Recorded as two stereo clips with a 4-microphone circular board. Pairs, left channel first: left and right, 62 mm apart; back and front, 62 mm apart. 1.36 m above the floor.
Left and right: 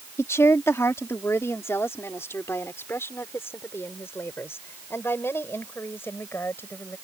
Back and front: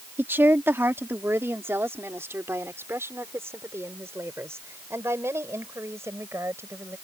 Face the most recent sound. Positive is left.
turn(degrees=40)